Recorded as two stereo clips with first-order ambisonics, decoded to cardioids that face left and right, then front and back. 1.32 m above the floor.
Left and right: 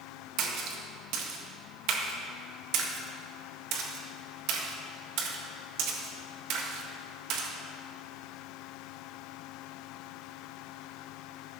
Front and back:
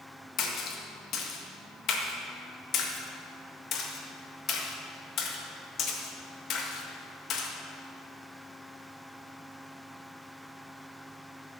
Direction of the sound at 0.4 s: 55° right.